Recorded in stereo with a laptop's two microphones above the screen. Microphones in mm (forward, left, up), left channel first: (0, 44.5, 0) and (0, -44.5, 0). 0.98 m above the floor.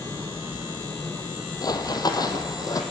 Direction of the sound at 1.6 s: 50° left (ahead or behind).